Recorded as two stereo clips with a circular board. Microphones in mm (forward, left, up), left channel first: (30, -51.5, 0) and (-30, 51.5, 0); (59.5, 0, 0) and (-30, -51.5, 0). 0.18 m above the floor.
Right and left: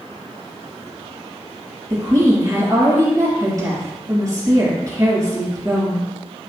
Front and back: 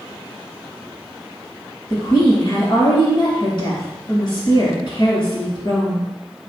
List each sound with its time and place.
1.9 s a woman speaking: 65° left, 3 m